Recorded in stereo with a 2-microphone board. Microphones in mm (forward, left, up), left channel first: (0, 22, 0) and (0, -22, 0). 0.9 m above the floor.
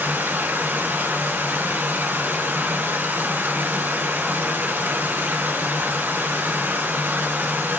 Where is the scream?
I don't hear a scream.